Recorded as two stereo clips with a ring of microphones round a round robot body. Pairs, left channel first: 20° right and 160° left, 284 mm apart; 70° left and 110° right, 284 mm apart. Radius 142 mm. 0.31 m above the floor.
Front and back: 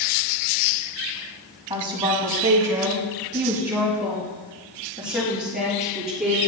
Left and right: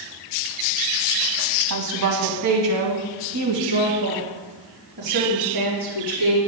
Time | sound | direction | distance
1.7 | a woman speaking | 130° right | 1.7 m